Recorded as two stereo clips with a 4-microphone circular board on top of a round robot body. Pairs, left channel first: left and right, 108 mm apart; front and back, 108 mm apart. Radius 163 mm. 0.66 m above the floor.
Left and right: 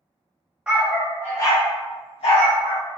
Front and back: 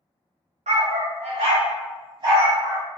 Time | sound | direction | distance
0.7 | a dog barking | 170° right | 0.8 m